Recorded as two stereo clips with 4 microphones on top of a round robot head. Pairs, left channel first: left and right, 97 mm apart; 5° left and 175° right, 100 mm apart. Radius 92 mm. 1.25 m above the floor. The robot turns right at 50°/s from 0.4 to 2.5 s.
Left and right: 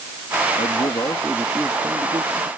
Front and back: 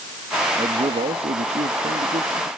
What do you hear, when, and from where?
0.6 s a man speaking: 135° left; by 2.5 s 130° right